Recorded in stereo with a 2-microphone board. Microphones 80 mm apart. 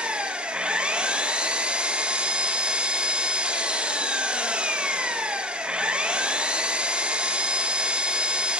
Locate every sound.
0.0 s an engine running: 15° right (ahead or behind), 0.7 m